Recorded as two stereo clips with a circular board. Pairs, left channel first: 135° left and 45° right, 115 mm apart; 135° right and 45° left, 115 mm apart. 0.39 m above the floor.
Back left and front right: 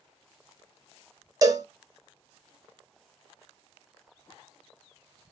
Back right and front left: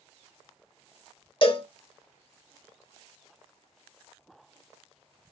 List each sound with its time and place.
1.4 s a cowbell: 100° right, 0.6 m